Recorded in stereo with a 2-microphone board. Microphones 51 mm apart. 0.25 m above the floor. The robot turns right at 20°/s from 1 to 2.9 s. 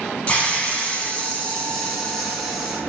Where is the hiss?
150° left, 0.8 m; by 2.8 s 175° right, 0.8 m.